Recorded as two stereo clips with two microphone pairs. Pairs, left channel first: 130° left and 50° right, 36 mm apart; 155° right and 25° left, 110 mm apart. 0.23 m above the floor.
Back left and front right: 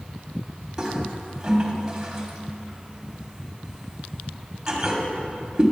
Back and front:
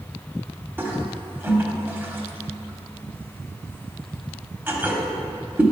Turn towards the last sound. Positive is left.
turn(degrees=-15)